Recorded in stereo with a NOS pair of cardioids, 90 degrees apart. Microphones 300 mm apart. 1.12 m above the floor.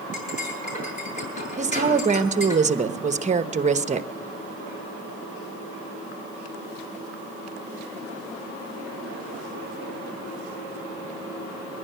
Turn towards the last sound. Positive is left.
turn(degrees=-25)